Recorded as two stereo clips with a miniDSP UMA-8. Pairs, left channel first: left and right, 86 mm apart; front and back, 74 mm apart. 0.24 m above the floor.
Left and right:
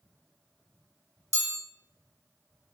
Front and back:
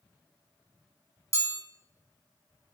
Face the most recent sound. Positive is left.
turn(degrees=-50)